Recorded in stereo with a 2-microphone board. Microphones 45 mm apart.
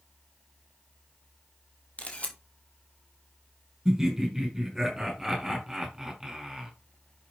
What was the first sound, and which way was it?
A camera shutter, 30° left (ahead or behind).